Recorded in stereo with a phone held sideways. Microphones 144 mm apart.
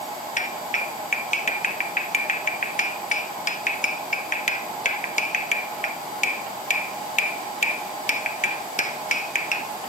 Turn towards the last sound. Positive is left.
turn(degrees=60)  # may be behind; listen again after turning